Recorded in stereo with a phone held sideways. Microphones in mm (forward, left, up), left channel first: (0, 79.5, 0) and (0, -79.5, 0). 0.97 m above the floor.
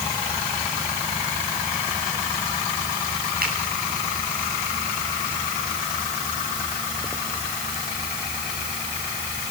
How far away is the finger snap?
About 8.5 m.